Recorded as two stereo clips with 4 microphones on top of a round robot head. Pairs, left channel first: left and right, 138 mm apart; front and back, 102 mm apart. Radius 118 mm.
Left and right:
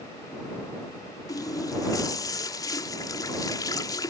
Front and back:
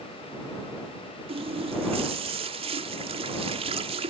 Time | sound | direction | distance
1.3 | a running tap | 155° left | ?